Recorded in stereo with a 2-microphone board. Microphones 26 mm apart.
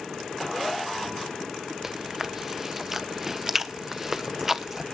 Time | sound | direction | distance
1.8 | chewing | 15° right (ahead or behind) | 0.9 m